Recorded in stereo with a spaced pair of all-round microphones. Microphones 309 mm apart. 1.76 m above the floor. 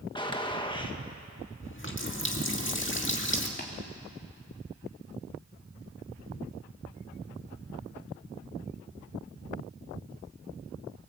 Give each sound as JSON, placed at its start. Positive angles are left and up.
{"t": 0.1, "sound": "a gunshot", "side_deg": 15, "distance_m": 1.5}
{"t": 1.6, "sound": "a running tap", "side_deg": 40, "distance_m": 2.0}
{"t": 3.6, "sound": "tapping", "side_deg": 35, "distance_m": 3.0}